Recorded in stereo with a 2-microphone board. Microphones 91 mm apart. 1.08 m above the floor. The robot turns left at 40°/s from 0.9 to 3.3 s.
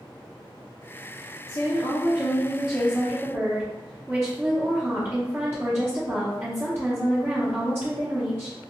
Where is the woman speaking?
40° left, 0.7 m; by 8.6 s 30° right, 0.7 m.